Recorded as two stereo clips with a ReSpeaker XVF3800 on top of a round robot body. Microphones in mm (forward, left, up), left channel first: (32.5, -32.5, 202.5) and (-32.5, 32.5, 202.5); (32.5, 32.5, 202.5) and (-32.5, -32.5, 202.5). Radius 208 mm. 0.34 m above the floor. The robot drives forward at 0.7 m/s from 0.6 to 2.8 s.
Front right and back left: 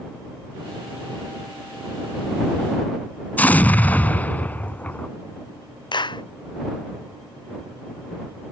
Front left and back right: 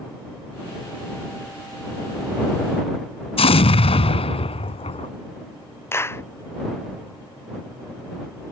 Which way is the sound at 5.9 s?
15° right.